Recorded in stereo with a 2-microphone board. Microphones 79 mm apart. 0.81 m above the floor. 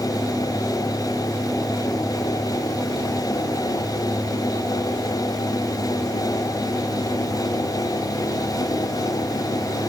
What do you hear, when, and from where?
Only background noise.